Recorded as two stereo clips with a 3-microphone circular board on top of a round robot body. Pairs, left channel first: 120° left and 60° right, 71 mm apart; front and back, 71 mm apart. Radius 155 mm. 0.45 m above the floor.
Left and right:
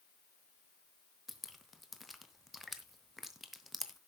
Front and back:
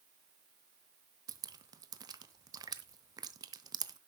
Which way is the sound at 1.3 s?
150° right.